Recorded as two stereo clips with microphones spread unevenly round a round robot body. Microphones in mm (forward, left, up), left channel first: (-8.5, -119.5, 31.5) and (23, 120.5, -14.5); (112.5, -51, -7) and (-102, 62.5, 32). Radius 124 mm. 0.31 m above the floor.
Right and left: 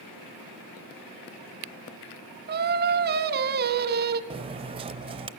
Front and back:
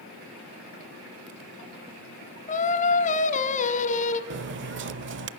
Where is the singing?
30° left, 0.9 m.